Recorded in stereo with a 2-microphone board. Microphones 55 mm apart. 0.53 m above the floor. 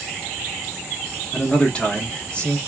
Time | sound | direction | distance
1.3 | a man speaking | 20° left (ahead or behind) | 1.2 m